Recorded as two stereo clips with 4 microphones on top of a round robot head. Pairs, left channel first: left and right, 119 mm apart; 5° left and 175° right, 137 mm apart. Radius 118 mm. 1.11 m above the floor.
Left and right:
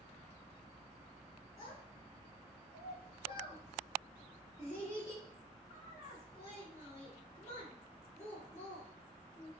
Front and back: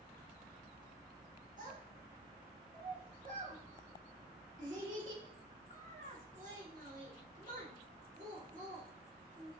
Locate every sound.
1.6 s a child speaking: 160° left, 2 m